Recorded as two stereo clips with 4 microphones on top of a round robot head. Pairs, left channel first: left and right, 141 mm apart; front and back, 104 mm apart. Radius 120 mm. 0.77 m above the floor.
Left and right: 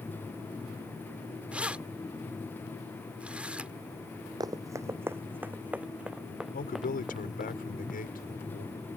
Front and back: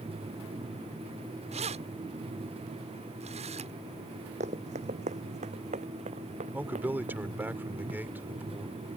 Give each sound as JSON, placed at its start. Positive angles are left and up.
{"t": 1.5, "sound": "keys jangling", "azimuth_deg": -170}
{"t": 4.4, "sound": "running footsteps", "azimuth_deg": -155}
{"t": 6.5, "sound": "a man speaking", "azimuth_deg": 105}